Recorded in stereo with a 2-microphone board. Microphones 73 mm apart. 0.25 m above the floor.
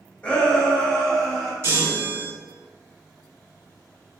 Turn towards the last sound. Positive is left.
turn(degrees=-45)  # may be behind; listen again after turning